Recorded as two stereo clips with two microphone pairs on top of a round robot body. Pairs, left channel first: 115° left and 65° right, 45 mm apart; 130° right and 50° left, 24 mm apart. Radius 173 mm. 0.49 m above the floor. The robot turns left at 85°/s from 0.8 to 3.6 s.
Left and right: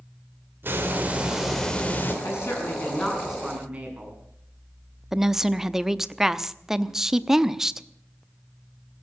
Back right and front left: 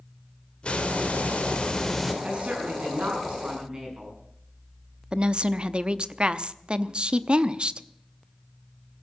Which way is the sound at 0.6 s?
95° right.